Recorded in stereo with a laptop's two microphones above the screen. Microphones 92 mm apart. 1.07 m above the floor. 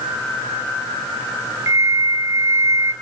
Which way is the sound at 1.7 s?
30° right (ahead or behind).